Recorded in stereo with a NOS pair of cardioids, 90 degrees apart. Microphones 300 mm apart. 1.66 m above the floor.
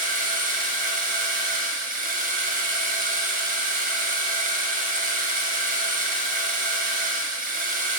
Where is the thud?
No thud in this recording.